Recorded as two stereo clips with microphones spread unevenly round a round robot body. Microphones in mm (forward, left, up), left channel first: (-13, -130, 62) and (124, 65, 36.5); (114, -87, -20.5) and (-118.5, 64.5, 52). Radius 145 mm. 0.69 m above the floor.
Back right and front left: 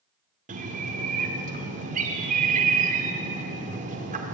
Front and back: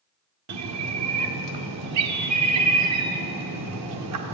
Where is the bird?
110° left, 1.8 m.